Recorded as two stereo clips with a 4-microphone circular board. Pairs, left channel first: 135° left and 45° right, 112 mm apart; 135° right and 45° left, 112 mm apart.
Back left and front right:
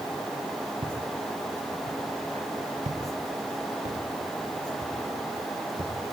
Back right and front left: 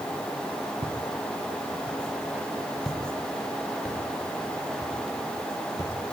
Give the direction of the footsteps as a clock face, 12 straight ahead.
12 o'clock.